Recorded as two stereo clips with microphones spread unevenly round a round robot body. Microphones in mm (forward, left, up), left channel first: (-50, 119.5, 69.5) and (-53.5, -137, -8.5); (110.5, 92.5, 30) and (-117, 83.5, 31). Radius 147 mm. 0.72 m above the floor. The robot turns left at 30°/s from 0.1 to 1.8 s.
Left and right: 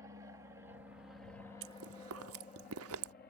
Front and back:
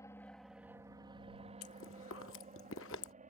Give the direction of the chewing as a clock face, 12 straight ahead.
1 o'clock.